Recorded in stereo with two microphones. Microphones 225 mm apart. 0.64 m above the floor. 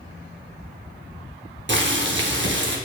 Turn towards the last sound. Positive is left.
turn(degrees=-55)  # may be behind; listen again after turning